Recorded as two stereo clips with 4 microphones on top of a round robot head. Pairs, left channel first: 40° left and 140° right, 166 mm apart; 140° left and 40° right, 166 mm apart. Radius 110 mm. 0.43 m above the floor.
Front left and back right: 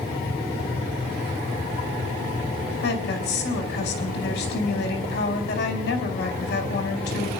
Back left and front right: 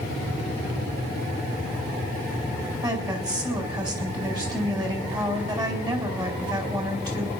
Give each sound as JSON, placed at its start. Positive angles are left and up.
{"t": 2.8, "sound": "a woman speaking", "azimuth_deg": 25, "distance_m": 4.5}